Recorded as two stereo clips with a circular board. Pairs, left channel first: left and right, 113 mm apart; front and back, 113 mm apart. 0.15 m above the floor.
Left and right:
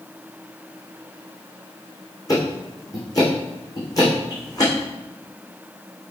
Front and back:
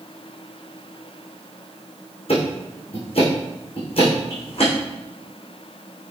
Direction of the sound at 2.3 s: 30° left.